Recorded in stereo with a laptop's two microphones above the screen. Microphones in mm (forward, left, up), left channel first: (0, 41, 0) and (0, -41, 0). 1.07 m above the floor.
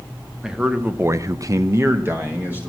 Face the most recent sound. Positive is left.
turn(degrees=-20)  # may be behind; listen again after turning